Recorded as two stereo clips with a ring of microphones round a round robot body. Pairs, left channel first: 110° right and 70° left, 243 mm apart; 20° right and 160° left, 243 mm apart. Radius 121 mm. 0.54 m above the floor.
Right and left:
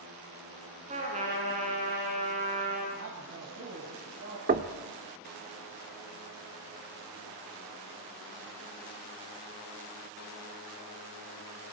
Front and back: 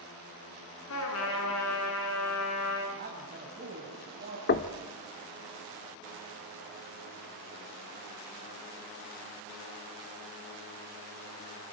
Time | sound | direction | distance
0.9 | a trumpet | 5° left | 7.5 m
3.0 | a man speaking | 105° left | 4.5 m
4.5 | knocking | 15° left | 1.0 m